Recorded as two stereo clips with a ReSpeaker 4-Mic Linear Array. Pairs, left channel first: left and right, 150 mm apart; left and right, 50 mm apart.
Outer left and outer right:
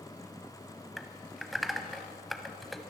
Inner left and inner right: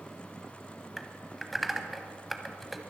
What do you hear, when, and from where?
1.0 s typing on a keyboard: centre (ahead or behind), 0.9 m